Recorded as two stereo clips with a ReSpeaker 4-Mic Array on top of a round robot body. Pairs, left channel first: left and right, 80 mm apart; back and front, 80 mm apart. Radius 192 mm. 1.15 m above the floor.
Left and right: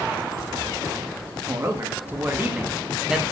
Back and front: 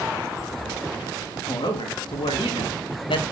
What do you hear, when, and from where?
1.5 s a man speaking: 150° right, 2.5 m; by 3.2 s 175° right, 1.6 m